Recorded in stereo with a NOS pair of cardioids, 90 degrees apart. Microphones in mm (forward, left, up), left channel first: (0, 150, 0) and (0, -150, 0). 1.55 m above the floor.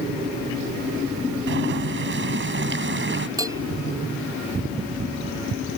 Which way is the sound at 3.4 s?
10° right.